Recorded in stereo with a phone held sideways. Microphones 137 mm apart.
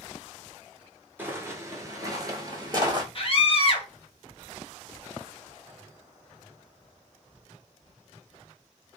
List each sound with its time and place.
1.2 s footsteps: 15° right (ahead or behind), 1.0 m; by 3.0 s 30° right (ahead or behind), 1.4 m
3.1 s a scream: 40° left (ahead or behind), 1.0 m